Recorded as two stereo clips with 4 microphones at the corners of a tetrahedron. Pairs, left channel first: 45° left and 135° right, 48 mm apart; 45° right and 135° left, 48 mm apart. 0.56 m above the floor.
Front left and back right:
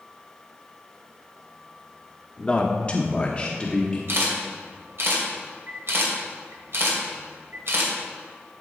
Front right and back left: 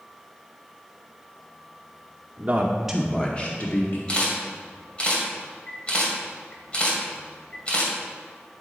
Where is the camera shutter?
110° right, 2 m.